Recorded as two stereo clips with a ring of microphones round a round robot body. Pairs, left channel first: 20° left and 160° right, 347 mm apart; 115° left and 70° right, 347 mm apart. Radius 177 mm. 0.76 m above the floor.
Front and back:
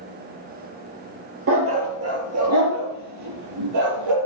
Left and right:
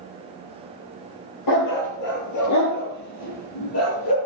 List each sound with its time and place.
1.5 s a dog barking: 150° left, 4.5 m; by 4.2 s 165° left, 5.5 m